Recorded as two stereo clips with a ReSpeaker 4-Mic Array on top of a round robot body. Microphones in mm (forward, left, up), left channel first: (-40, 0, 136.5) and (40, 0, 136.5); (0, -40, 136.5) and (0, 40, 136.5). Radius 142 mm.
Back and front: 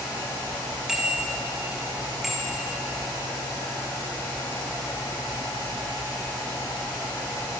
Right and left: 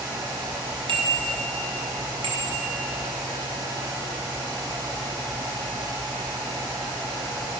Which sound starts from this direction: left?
A bicycle bell, at 0.9 s.